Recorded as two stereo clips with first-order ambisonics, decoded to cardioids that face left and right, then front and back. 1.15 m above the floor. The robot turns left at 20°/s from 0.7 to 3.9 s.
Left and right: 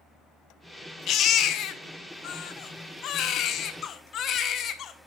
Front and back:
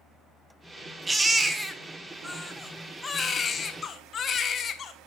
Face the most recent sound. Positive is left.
turn(degrees=55)